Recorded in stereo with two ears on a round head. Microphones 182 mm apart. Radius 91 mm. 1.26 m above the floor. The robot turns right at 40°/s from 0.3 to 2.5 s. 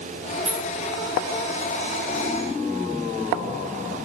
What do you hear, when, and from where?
0.5 s keys jangling: 30° right (ahead or behind), 5.5 m; by 0.7 s 40° right (ahead or behind), 5.5 m